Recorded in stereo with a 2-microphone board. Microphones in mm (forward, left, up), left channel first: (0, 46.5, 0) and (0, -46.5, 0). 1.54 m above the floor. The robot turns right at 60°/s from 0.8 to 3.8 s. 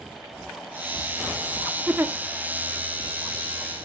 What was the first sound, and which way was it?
A giggle, 15° right (ahead or behind).